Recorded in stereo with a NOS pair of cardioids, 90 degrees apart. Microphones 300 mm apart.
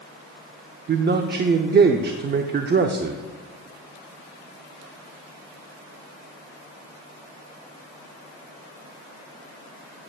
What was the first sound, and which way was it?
A man speaking, 35° right.